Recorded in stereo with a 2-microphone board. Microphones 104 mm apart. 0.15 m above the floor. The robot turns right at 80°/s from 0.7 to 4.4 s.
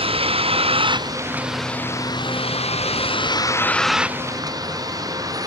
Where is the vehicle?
70° right (ahead or behind); by 5.5 s 35° right (ahead or behind).